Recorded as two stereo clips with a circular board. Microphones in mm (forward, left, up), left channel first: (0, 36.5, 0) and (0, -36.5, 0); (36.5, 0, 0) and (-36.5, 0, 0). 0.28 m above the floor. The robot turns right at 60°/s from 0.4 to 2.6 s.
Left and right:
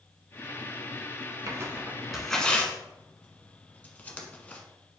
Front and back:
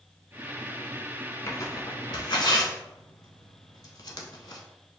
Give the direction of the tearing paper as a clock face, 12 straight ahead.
2 o'clock.